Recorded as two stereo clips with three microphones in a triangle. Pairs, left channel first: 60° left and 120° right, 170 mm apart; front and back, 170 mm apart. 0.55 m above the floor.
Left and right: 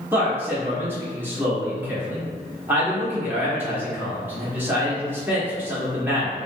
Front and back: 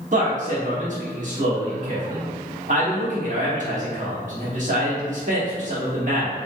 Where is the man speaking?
165° left, 1.1 m.